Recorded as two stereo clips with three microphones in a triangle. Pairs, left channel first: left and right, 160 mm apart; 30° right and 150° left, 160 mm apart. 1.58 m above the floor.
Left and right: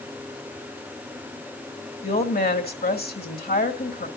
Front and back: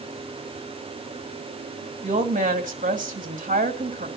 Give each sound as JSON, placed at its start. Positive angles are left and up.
{"t": 2.0, "sound": "a woman speaking", "azimuth_deg": 110, "distance_m": 2.5}